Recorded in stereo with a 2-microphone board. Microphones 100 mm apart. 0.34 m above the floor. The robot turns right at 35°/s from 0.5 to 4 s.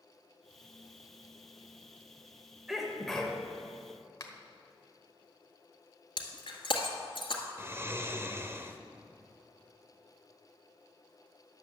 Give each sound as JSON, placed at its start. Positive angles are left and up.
{"t": 2.7, "sound": "a sneeze", "side_deg": -5, "distance_m": 1.6}
{"t": 4.2, "sound": "a finger snap", "side_deg": 35, "distance_m": 1.2}
{"t": 6.2, "sound": "breaking glass", "side_deg": 60, "distance_m": 1.8}
{"t": 7.6, "sound": "snoring", "side_deg": -25, "distance_m": 0.7}